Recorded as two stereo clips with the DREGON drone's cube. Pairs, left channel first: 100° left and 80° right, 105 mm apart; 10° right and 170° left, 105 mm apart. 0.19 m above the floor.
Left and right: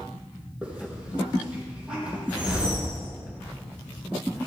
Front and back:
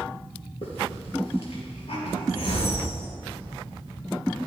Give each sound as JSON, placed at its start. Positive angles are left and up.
{"t": 0.6, "sound": "a hiss", "azimuth_deg": 0, "distance_m": 4.5}
{"t": 2.3, "sound": "a whoosh", "azimuth_deg": 0, "distance_m": 5.5}